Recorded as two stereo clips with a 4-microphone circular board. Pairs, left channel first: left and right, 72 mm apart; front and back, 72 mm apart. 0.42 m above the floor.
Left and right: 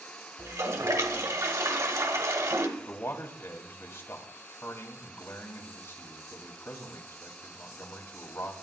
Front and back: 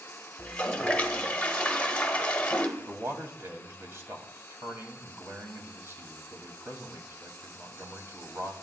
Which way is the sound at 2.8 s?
135° left.